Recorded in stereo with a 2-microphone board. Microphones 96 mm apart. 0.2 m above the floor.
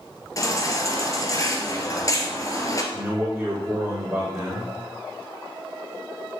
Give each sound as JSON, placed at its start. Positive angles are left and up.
{"t": 0.4, "sound": "a baby crying", "side_deg": 35, "distance_m": 1.6}
{"t": 2.9, "sound": "a man speaking", "side_deg": -15, "distance_m": 4.0}